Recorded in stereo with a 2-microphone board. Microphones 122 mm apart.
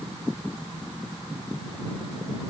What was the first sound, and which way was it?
Only background noise.